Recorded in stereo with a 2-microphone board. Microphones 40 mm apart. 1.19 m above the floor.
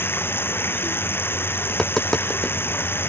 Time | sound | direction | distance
0.0 | running water | 65° left (ahead or behind) | ?
1.7 | tapping | 20° left (ahead or behind) | ?